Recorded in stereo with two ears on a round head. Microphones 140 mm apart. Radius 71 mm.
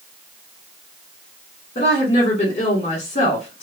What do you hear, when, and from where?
1.8 s a woman speaking: 40° left (ahead or behind), 1.5 m